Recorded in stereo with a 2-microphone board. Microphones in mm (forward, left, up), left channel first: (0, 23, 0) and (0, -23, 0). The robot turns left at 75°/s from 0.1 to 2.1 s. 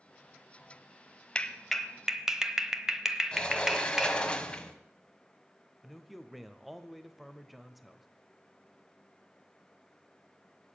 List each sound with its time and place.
1.4 s a clap: 20° left (ahead or behind), 1.0 m; by 4.2 s 10° right (ahead or behind), 1.0 m
3.3 s a sliding door: 20° left (ahead or behind), 1.2 m
5.8 s a man speaking: centre (ahead or behind), 0.9 m